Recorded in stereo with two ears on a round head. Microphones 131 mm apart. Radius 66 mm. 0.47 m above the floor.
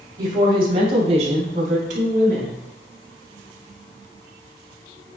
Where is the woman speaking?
25° right (ahead or behind), 2.5 m; by 2.6 s 60° right (ahead or behind), 4 m.